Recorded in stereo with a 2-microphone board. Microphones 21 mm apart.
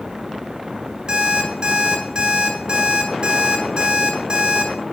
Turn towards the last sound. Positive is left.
turn(degrees=-60)  # may be behind; listen again after turning